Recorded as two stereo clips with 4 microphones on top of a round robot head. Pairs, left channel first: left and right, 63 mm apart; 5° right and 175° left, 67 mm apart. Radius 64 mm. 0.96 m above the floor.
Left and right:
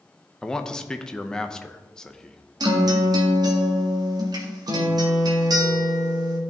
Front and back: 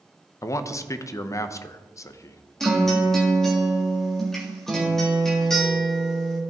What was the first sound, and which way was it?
A man speaking, 15° left.